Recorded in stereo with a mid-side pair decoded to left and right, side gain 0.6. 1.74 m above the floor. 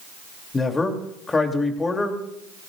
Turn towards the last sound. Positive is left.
turn(degrees=20)